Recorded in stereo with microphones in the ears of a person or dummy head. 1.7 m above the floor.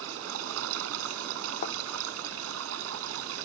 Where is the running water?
75° right (ahead or behind).